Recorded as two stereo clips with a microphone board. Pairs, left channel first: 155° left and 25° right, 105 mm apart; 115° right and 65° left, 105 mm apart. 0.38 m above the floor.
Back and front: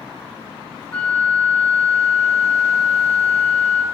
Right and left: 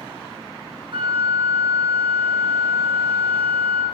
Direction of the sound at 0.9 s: 85° left.